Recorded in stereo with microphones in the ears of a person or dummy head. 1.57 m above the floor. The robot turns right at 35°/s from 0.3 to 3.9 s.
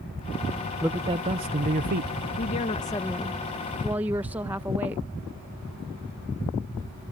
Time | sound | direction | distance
0.8 | a man speaking | 170° right | ?
2.4 | a woman speaking | 140° left | ?